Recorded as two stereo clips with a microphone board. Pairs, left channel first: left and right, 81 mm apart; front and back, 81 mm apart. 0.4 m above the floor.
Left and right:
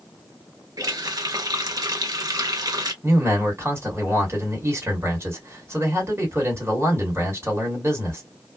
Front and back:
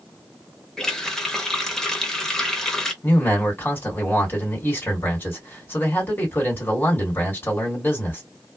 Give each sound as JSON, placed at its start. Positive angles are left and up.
{"t": 0.8, "sound": "a running tap", "azimuth_deg": -80, "distance_m": 0.8}
{"t": 3.0, "sound": "a man speaking", "azimuth_deg": -50, "distance_m": 1.8}